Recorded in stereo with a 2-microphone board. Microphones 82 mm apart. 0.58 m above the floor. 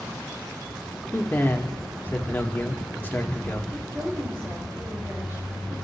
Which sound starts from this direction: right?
A woman speaking, at 3.7 s.